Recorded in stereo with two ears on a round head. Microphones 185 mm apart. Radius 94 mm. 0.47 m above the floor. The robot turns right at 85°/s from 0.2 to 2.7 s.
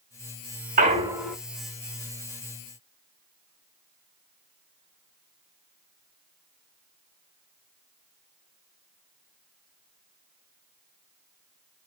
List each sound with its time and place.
0.8 s a clunk: 45° right, 0.6 m; by 1.4 s 5° left, 0.6 m